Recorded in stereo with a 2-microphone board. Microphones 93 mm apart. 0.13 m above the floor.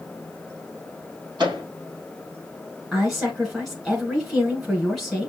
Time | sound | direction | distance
1.4 | a microwave | 45° right (ahead or behind) | 3.5 m
2.9 | a woman speaking | centre (ahead or behind) | 1.1 m